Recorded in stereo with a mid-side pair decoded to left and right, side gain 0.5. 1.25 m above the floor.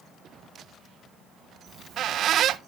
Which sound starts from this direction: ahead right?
A squeak, at 1.7 s.